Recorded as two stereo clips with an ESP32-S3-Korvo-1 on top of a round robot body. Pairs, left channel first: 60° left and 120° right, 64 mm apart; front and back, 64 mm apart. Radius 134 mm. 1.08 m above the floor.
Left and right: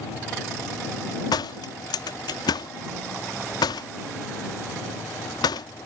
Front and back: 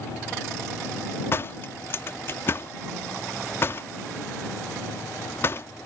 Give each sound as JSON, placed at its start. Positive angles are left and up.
{"t": 1.3, "sound": "a door slam", "azimuth_deg": 55}